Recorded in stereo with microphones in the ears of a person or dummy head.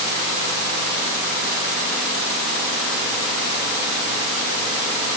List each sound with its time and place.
Only background noise.